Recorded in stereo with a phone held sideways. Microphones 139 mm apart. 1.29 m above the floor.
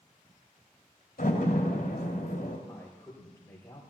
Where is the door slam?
70° left (ahead or behind), 2.5 m.